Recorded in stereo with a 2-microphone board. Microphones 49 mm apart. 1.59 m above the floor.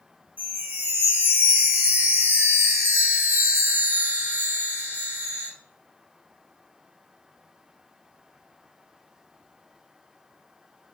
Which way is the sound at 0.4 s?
35° right (ahead or behind).